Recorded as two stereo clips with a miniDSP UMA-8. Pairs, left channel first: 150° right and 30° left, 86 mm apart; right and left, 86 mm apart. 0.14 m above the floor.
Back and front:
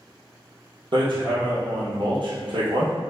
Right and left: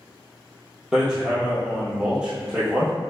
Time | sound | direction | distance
0.9 | hammering | 10° left | 1.2 m